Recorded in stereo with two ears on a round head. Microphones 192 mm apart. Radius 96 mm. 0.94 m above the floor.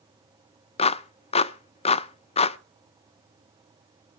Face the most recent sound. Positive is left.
turn(degrees=30)  # may be behind; listen again after turning